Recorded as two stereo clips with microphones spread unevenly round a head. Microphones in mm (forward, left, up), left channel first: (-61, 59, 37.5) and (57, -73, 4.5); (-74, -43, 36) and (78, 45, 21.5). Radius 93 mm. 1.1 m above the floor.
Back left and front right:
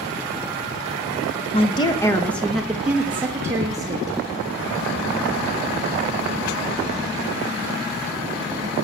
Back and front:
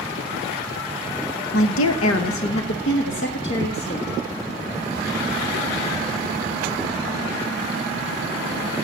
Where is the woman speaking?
170° right, 0.8 m; by 4.2 s 115° right, 1.7 m.